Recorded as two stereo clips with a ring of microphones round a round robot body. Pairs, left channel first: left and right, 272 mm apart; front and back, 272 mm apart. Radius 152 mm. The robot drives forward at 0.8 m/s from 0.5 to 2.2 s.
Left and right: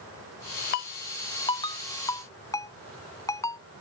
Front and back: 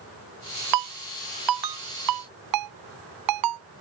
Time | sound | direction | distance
0.7 | a ringtone | 150° left | ?